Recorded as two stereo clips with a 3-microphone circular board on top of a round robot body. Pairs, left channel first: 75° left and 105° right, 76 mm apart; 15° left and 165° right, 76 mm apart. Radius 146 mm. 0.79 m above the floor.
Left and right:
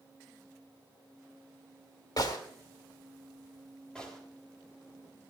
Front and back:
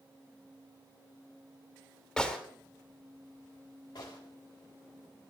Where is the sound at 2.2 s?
95° left, 2.5 m.